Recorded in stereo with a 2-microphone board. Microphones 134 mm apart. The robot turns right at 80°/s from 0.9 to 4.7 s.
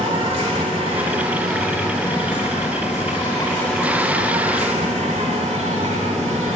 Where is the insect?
55° right, 3 m; by 6.6 s 110° right, 3 m.